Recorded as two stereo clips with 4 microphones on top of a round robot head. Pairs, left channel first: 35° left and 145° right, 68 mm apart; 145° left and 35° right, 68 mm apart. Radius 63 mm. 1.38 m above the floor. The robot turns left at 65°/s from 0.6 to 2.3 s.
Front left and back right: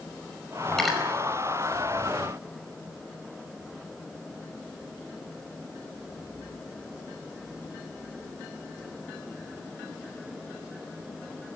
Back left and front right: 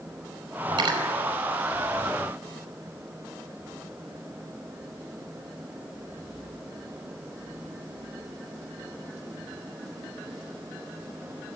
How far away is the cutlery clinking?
About 5 m.